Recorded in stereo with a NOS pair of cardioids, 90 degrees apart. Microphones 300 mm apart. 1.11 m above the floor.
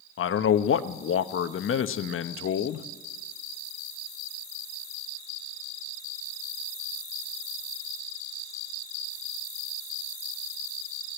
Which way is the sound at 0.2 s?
45° left.